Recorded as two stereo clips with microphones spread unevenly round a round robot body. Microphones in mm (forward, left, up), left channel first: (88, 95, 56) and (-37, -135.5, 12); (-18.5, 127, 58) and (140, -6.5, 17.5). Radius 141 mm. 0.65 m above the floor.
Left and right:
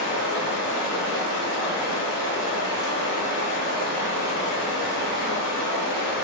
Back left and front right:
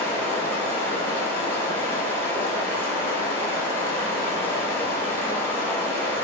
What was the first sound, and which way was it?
Running water, 50° left.